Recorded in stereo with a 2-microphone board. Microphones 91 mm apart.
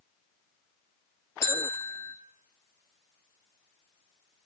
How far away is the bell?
About 0.9 m.